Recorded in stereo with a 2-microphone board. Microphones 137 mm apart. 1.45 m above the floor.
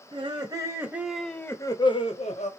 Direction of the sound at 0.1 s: 40° right (ahead or behind).